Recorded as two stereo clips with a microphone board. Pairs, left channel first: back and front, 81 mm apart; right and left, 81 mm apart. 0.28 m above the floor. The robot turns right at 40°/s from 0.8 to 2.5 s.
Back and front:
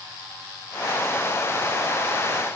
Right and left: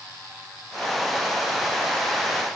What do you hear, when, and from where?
Only background noise.